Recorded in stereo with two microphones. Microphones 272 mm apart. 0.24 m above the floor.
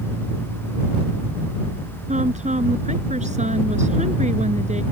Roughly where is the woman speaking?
Right.